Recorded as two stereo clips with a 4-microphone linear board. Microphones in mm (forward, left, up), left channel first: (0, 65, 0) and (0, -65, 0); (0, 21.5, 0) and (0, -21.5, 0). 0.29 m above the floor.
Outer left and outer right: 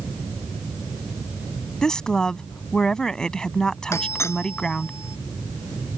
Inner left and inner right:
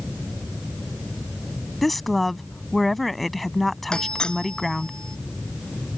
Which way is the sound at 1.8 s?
5° left (ahead or behind).